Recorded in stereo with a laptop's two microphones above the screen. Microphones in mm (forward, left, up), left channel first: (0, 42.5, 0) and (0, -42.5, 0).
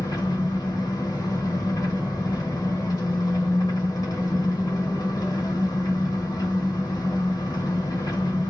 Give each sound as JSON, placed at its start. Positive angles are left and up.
{"t": 0.0, "sound": "an engine running", "side_deg": 45, "distance_m": 1.1}